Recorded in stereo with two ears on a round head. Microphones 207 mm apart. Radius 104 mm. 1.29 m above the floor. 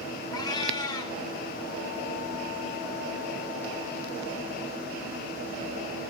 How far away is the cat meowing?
About 0.9 m.